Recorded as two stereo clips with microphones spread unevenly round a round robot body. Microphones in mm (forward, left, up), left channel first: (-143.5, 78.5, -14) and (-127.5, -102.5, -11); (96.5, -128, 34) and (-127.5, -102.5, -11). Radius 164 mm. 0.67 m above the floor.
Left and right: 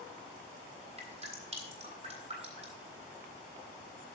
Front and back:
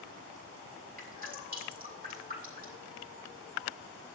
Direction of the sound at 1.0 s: 140° right.